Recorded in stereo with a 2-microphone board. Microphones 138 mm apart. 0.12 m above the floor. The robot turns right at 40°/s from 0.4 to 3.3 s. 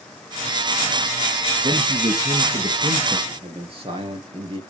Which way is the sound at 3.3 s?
40° right (ahead or behind).